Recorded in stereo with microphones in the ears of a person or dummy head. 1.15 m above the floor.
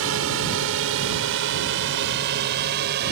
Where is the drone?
70° right (ahead or behind); by 3.1 s 55° right (ahead or behind).